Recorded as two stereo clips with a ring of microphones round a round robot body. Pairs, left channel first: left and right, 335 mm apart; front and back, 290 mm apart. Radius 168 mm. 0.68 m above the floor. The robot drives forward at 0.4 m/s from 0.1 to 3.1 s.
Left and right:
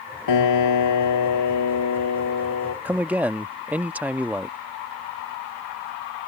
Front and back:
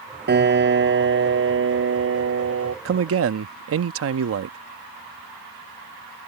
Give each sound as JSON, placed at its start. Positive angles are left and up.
{"t": 0.3, "sound": "a piano", "azimuth_deg": 125}
{"t": 2.9, "sound": "a man speaking", "azimuth_deg": -175}